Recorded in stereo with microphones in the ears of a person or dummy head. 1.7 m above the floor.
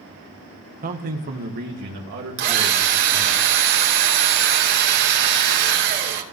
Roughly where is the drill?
Right.